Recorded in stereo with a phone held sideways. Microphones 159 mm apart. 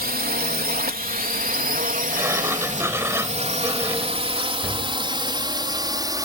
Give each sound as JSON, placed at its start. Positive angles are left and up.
{"t": 0.0, "sound": "a drone", "side_deg": -70}
{"t": 2.1, "sound": "a sliding door", "side_deg": -15}